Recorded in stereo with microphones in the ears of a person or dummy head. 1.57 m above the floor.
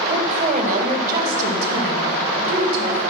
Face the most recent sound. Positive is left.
turn(degrees=-65)  # may be behind; listen again after turning